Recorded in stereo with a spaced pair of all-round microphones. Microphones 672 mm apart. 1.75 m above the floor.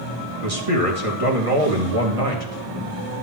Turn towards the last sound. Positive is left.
turn(degrees=-55)  # may be behind; listen again after turning